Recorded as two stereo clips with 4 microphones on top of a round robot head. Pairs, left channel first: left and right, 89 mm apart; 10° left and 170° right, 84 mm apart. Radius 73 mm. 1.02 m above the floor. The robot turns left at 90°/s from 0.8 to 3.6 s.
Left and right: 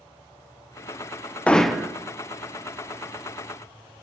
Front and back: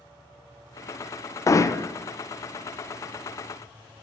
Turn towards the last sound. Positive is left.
turn(degrees=-170)